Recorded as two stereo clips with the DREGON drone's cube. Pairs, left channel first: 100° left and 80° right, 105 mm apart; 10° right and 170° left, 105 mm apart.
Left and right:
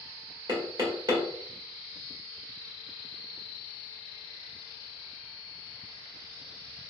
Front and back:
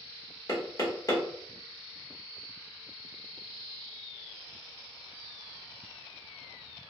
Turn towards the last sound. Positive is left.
turn(degrees=-55)